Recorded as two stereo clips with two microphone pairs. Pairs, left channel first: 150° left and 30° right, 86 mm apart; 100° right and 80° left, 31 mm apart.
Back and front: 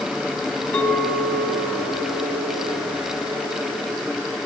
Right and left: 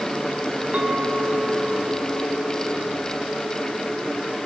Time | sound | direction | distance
0.7 | a clink | 90° left | 1.2 m